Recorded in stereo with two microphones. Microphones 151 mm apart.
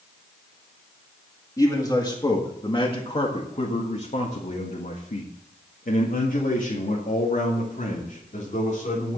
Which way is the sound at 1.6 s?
20° left (ahead or behind).